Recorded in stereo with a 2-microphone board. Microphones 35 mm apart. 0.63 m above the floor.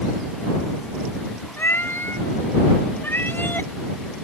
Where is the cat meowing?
85° left; by 3.7 s 70° left (ahead or behind).